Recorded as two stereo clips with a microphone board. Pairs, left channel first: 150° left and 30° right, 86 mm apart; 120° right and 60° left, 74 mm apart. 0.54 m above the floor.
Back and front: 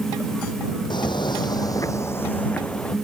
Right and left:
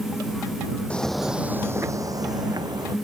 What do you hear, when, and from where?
0.9 s footsteps: 165° left; by 3.0 s 70° left